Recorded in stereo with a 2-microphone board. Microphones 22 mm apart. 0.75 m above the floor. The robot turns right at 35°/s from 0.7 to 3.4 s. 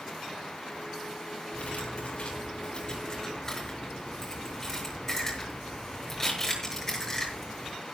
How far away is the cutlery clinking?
About 7.5 m.